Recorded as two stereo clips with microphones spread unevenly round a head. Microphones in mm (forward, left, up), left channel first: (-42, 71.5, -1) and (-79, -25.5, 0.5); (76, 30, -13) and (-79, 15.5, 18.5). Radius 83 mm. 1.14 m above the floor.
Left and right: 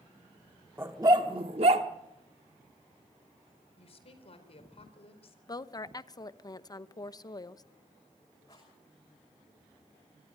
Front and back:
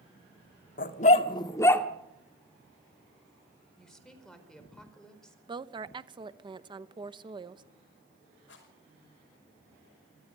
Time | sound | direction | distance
0.8 | a dog barking | 35° right | 1.1 m
3.8 | a woman speaking | 95° left | 4.5 m
5.5 | a woman speaking | 120° left | 1.0 m
8.5 | a rattle | straight ahead | 5.5 m